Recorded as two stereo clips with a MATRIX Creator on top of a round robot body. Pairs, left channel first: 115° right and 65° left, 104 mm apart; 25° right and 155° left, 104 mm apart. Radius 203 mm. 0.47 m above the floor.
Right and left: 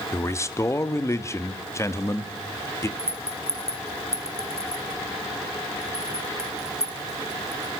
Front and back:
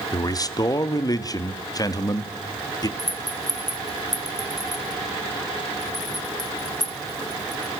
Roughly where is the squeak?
I don't hear a squeak.